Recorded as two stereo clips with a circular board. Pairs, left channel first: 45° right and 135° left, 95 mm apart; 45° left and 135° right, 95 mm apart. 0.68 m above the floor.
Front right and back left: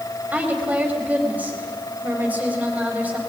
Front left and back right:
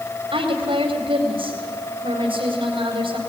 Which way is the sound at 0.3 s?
150° right.